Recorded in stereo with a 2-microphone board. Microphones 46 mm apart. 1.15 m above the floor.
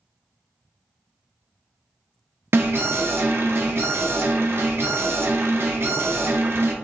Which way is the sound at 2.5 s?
55° right (ahead or behind).